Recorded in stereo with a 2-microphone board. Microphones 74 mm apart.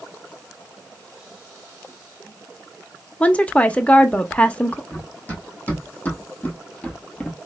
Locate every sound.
3.2 s a woman speaking: 20° left (ahead or behind), 0.6 m
4.9 s running footsteps: 25° left (ahead or behind), 2.5 m; by 7.4 s 10° left (ahead or behind), 0.8 m